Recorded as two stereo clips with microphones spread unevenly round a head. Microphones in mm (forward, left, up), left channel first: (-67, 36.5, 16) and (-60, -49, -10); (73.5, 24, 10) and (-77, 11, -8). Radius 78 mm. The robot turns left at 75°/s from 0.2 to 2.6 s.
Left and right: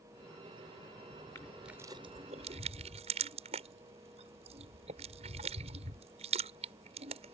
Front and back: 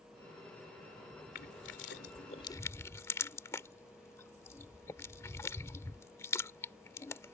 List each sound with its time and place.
1.4 s crushing: 25° left; by 7.3 s 65° right